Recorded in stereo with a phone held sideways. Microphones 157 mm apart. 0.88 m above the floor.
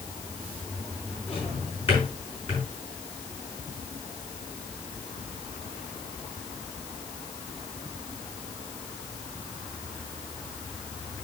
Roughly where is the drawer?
Left.